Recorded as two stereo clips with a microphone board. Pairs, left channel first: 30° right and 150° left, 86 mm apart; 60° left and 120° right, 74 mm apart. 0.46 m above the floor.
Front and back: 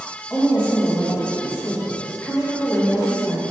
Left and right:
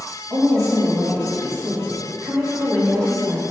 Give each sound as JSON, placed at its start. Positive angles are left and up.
{"t": 0.3, "sound": "a woman speaking", "azimuth_deg": -95, "distance_m": 2.0}